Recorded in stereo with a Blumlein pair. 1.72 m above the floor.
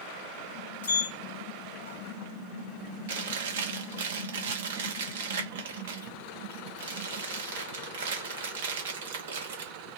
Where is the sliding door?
65° left, 0.8 m.